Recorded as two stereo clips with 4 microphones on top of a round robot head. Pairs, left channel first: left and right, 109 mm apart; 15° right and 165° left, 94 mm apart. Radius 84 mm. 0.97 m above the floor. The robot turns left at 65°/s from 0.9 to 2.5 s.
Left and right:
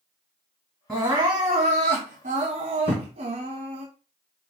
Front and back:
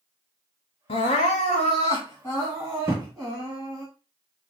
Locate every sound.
0.9 s crying: straight ahead, 1.5 m; by 3.9 s 100° right, 1.5 m
2.9 s a thud: 135° left, 0.9 m